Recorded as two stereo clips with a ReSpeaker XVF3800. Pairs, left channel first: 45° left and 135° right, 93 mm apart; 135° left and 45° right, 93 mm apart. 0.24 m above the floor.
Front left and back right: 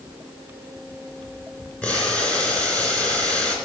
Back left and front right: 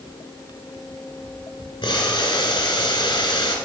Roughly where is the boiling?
Behind left.